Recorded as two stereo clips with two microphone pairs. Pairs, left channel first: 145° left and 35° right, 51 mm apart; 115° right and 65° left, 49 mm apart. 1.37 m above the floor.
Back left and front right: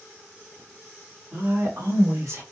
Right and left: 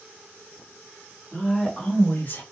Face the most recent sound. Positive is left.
turn(degrees=-70)